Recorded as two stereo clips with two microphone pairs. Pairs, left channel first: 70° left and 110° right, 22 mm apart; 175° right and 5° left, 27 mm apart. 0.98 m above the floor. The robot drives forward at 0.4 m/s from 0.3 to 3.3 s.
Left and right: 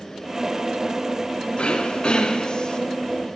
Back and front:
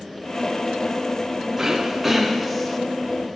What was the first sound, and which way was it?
Throat clearing, 80° left.